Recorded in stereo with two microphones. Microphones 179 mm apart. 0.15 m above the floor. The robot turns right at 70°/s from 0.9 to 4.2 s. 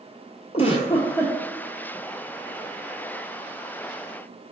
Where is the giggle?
145° left, 0.7 m; by 1.4 s 175° left, 0.7 m.